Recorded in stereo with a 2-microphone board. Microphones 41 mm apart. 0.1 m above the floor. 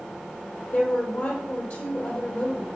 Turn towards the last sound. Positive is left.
turn(degrees=50)  # may be behind; listen again after turning